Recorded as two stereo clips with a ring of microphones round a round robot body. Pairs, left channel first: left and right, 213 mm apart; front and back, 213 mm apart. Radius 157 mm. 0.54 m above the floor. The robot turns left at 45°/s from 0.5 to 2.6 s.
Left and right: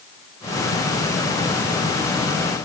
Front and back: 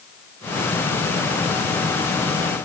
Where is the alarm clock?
No alarm clock in this recording.